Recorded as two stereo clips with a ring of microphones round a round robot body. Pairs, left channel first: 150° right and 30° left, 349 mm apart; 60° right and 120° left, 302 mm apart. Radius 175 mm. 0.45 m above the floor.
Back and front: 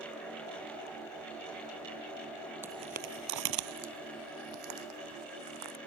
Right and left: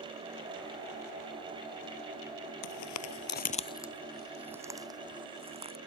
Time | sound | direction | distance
2.6 | footsteps | 55° right | ?